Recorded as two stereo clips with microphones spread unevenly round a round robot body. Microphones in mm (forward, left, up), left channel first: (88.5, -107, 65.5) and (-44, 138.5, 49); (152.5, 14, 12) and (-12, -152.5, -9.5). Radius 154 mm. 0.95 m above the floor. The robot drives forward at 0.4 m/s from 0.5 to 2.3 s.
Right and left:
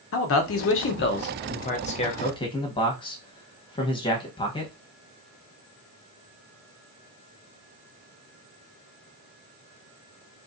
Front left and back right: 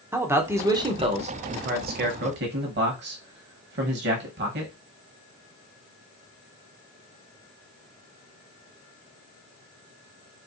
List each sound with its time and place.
0.1 s a man speaking: 65° right, 0.8 m; by 4.7 s 135° right, 0.9 m